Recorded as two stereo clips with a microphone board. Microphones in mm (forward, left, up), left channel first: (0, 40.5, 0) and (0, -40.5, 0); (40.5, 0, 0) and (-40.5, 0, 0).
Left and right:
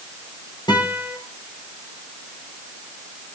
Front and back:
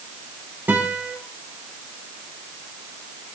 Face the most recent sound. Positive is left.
turn(degrees=115)